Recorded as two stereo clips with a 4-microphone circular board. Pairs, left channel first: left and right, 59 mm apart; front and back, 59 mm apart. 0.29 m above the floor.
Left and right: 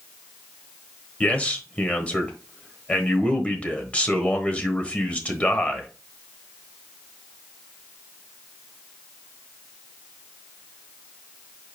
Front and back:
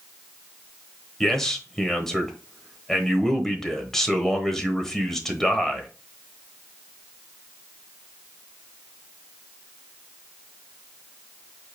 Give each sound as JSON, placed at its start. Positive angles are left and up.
{"t": 1.2, "sound": "a man speaking", "azimuth_deg": 70, "distance_m": 1.1}